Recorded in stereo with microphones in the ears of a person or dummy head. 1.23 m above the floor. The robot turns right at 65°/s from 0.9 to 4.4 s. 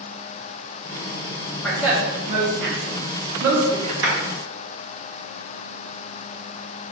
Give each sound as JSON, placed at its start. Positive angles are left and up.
{"t": 1.6, "sound": "a woman speaking", "side_deg": 0, "distance_m": 1.0}
{"t": 4.0, "sound": "a clap", "side_deg": -65, "distance_m": 2.0}